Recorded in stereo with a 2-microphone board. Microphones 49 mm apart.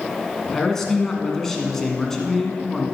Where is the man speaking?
10° left (ahead or behind), 1.4 m.